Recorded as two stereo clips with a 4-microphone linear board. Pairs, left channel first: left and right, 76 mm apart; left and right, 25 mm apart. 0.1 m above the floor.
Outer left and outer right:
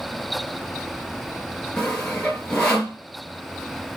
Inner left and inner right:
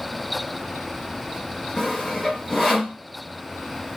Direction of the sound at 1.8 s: 10° left (ahead or behind).